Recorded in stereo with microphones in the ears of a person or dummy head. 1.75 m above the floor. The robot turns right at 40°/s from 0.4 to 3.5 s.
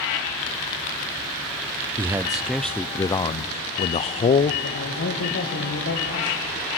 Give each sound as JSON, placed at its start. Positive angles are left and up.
{"t": 2.0, "sound": "a man speaking", "azimuth_deg": -25, "distance_m": 0.6}
{"t": 4.6, "sound": "a man speaking", "side_deg": 65, "distance_m": 2.0}